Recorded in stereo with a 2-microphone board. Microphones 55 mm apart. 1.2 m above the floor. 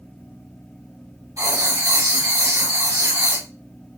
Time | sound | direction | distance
1.4 | writing | 75° right (ahead or behind) | 2.5 m